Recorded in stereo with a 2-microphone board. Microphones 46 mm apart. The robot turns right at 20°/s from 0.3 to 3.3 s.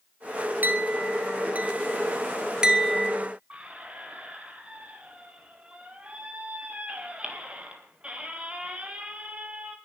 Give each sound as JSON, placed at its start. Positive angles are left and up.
{"t": 0.6, "sound": "a clink", "side_deg": -45, "distance_m": 1.2}
{"t": 3.5, "sound": "a squeak", "side_deg": -25, "distance_m": 2.0}